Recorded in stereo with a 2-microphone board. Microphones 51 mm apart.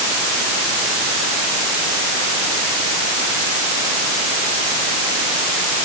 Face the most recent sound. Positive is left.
No sound to turn to.